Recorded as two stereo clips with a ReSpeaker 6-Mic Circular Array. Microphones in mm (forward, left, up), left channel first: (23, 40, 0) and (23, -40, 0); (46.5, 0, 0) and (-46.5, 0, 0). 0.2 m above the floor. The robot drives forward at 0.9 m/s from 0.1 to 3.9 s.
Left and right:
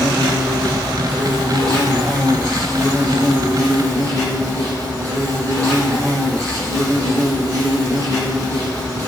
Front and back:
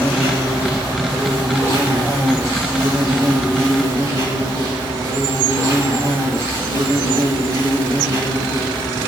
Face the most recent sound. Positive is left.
turn(degrees=-140)